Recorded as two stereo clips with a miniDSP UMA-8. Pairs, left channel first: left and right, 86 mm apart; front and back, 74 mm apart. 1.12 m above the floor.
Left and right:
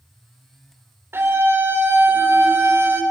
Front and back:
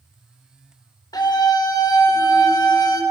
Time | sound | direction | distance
1.1 | a scream | 30° right | 3.5 m